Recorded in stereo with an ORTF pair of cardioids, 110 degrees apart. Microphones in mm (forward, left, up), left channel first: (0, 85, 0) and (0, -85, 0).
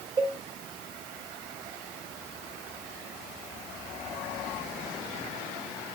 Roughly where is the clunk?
No clunk in this recording.